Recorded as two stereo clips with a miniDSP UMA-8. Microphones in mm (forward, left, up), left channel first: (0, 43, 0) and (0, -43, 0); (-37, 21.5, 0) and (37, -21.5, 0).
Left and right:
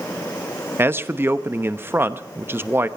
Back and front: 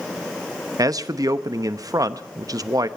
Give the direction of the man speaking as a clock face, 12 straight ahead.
1 o'clock.